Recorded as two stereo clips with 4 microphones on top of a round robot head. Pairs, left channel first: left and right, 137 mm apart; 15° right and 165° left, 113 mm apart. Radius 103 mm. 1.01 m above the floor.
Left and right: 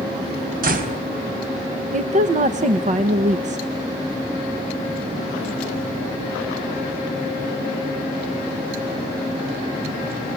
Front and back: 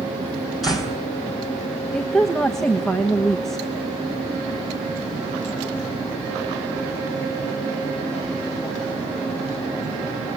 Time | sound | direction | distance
0.6 | a door slam | 105° right | 4.5 m
1.9 | a woman speaking | 100° right | 1.3 m